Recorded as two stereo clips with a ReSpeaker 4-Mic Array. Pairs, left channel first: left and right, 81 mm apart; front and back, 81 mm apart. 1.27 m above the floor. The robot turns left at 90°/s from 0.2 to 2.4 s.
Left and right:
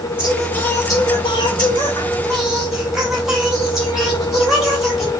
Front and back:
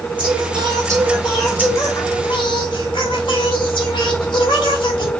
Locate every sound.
0.2 s singing: 165° right, 2.5 m; by 5.1 s 5° right, 2.5 m